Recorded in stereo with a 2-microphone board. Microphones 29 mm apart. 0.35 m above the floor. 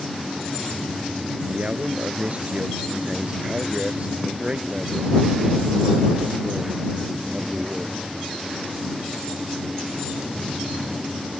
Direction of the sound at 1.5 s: 45° right (ahead or behind).